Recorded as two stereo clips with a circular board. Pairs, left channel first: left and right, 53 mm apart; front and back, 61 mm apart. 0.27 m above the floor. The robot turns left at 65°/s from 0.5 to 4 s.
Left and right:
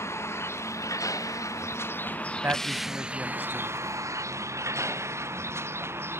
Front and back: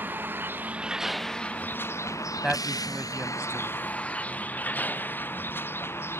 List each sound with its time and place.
0.0 s a vehicle: 125° left; by 6.2 s 50° right
2.4 s a man speaking: 95° right; by 3.8 s straight behind